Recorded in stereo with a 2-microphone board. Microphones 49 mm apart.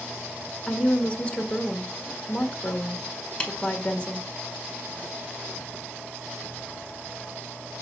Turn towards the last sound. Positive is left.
turn(degrees=20)  # may be behind; listen again after turning